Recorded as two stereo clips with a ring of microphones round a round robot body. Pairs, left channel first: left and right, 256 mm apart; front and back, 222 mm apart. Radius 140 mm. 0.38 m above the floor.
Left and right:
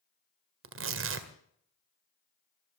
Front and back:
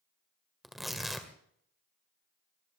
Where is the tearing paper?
90° right, 1.8 m.